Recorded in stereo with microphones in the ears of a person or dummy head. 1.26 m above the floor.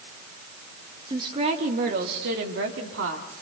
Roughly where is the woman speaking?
Right.